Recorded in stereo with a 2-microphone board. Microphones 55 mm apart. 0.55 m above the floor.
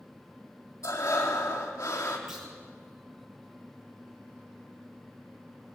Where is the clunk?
Centre (ahead or behind), 9 m.